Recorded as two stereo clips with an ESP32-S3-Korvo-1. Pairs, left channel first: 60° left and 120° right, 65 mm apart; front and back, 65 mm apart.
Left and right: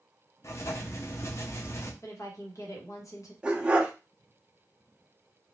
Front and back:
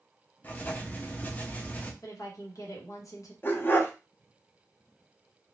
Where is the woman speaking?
30° left, 1.1 m.